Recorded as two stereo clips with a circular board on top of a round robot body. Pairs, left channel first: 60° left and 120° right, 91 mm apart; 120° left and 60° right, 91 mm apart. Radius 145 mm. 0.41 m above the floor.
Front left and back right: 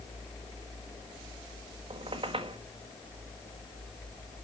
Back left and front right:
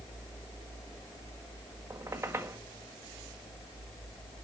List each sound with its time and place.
1.9 s a squeak: 120° right, 1.6 m